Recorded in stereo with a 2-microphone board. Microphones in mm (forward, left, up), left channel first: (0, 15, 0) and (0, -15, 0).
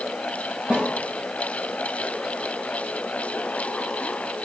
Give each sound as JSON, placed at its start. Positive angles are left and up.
{"t": 0.7, "sound": "a snare drum", "side_deg": -30, "distance_m": 3.0}